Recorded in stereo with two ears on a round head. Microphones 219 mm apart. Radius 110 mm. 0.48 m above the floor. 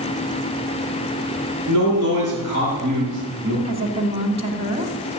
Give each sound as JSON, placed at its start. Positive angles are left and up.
{"t": 1.7, "sound": "a man speaking", "side_deg": -70, "distance_m": 8.0}
{"t": 3.6, "sound": "a woman speaking", "side_deg": -30, "distance_m": 1.7}